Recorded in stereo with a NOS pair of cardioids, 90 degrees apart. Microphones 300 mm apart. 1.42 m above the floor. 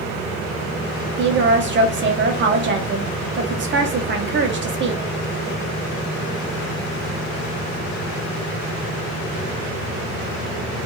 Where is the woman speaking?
40° right, 0.8 m.